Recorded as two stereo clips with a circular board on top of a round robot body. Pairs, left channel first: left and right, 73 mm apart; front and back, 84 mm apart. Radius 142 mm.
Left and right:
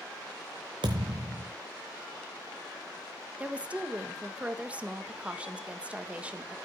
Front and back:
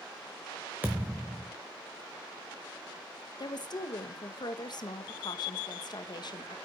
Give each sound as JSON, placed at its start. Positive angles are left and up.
{"t": 0.8, "sound": "a thud", "azimuth_deg": -110, "distance_m": 0.7}
{"t": 3.4, "sound": "a woman speaking", "azimuth_deg": -20, "distance_m": 1.6}